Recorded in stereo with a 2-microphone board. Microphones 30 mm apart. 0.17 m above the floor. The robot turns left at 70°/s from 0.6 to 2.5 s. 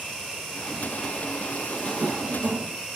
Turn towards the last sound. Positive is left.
turn(degrees=-90)